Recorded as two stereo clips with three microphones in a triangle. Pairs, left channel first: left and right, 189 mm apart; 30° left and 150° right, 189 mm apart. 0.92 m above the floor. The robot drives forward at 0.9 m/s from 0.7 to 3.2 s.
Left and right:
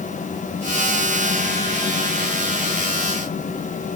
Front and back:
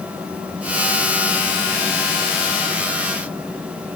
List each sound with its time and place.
Only background noise.